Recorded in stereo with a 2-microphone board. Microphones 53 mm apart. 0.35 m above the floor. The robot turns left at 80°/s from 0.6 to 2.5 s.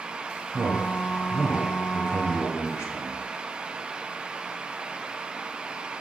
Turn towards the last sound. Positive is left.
turn(degrees=100)